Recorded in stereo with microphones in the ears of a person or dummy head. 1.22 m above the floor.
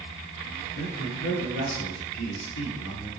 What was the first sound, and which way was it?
A man speaking, 75° left (ahead or behind).